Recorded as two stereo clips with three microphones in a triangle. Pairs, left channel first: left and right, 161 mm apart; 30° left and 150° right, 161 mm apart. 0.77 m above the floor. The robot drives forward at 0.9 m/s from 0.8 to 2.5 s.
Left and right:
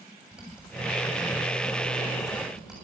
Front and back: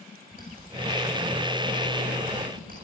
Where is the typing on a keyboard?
175° right, 7.5 m.